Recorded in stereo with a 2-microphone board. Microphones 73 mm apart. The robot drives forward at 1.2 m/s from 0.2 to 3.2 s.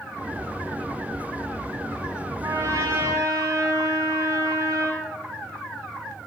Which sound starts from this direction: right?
A trumpet, at 2.4 s.